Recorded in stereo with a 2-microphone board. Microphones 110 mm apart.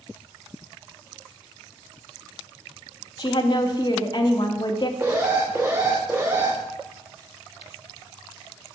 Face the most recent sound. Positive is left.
turn(degrees=-20)  # may be behind; listen again after turning